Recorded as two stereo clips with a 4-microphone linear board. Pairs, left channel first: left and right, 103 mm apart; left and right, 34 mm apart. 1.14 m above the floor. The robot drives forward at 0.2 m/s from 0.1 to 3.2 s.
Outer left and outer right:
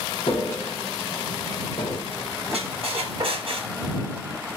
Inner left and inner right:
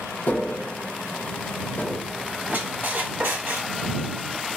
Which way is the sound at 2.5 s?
70° right (ahead or behind).